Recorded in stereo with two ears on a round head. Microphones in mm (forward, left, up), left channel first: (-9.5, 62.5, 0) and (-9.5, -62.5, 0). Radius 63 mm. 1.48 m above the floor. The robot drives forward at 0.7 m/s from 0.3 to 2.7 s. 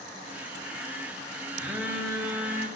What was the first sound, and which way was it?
A phone buzzing, 10° right (ahead or behind).